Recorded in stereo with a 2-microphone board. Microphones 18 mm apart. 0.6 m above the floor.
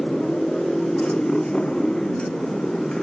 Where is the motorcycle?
80° left; by 3.0 s 55° left (ahead or behind).